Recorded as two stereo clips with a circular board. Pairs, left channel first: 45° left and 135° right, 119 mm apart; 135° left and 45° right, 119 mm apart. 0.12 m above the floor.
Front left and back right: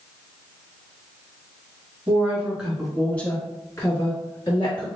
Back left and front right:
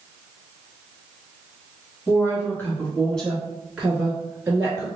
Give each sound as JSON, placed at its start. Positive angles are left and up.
{"t": 2.1, "sound": "a woman speaking", "azimuth_deg": 165, "distance_m": 1.7}